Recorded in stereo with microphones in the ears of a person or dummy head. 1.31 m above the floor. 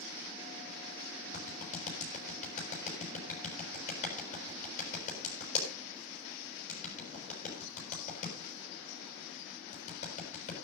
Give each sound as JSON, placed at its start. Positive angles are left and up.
{"t": 1.3, "sound": "a clap", "side_deg": 45, "distance_m": 6.5}